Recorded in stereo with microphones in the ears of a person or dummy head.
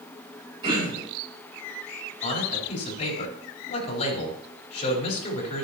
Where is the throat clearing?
30° right (ahead or behind), 6 m.